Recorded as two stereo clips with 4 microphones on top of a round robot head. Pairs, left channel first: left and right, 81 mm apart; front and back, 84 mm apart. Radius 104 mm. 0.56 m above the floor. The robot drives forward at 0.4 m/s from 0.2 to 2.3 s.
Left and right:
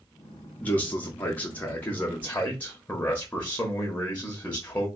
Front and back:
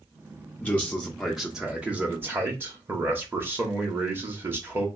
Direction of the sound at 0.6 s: 45° left.